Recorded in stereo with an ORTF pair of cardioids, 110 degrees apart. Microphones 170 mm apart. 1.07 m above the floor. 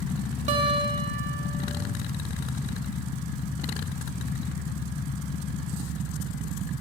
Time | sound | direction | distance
0.5 | a guitar | 45° right | 1.0 m